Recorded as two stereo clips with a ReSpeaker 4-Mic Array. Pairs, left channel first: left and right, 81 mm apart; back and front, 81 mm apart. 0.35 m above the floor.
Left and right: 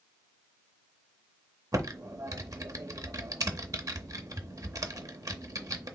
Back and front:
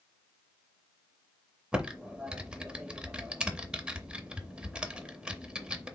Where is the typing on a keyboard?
70° right, 0.6 m.